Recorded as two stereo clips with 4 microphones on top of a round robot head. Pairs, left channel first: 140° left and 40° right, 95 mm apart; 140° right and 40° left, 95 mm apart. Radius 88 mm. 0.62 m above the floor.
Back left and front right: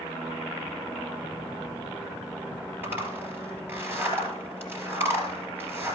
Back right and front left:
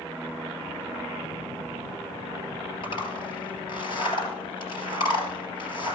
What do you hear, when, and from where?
2.8 s a zipper: 110° right, 3 m